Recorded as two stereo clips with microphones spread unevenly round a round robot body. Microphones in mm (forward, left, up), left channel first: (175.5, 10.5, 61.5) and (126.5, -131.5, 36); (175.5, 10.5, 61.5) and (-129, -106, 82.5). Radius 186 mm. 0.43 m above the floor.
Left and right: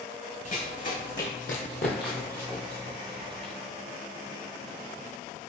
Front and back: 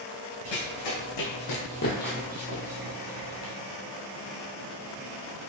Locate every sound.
0.5 s running footsteps: 40° left, 1.7 m; by 3.5 s 170° right, 1.4 m